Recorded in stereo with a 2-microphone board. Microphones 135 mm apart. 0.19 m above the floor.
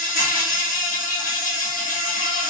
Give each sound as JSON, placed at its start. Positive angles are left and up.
{"t": 0.0, "sound": "an insect", "side_deg": 80, "distance_m": 1.1}